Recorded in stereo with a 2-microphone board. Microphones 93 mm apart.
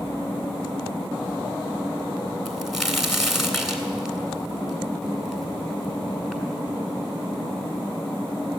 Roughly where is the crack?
Centre.